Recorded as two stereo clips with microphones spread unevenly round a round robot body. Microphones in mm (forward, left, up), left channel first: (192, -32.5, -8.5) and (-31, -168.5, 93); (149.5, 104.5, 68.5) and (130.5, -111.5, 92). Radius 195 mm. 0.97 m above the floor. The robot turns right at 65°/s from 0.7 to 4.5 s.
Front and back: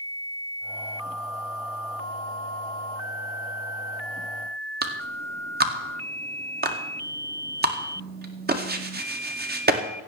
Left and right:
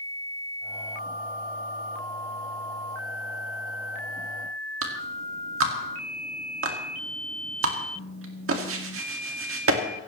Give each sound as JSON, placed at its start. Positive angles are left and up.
{"t": 4.8, "sound": "a clap", "azimuth_deg": -95, "distance_m": 2.0}